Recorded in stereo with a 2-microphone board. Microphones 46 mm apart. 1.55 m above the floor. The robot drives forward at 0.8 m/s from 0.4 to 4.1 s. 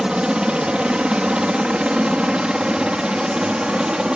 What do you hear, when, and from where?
0.0 s a helicopter: 20° right (ahead or behind); by 4.2 s 15° right (ahead or behind)